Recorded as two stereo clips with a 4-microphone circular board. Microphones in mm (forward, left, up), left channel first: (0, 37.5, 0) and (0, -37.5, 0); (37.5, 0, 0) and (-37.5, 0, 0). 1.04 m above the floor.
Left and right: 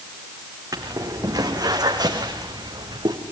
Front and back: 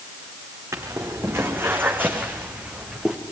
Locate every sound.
0.7 s footsteps: 130° right, 4 m; by 3.2 s 100° right, 3.5 m